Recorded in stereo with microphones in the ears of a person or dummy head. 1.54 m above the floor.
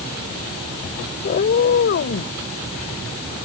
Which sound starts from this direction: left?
A cat meowing, at 1.2 s.